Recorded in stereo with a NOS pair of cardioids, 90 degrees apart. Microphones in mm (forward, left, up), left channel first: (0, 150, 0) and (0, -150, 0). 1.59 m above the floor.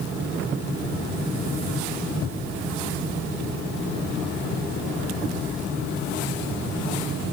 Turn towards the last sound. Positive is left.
No sound to turn to.